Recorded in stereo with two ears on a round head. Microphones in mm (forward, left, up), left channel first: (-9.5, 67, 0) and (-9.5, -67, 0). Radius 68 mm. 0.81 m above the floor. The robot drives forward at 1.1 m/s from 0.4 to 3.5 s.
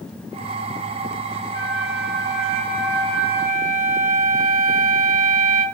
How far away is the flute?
About 0.7 m.